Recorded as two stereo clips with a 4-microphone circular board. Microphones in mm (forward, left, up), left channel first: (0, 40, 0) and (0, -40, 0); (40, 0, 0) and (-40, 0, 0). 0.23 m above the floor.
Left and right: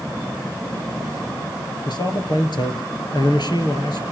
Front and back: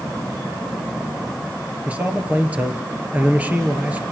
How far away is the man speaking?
About 3.5 m.